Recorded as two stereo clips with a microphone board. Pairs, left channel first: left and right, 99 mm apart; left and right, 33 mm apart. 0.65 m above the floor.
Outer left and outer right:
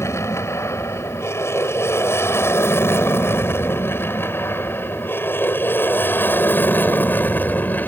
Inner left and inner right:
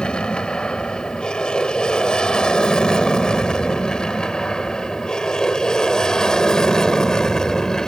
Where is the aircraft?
30° left (ahead or behind); by 7.9 s 20° left (ahead or behind).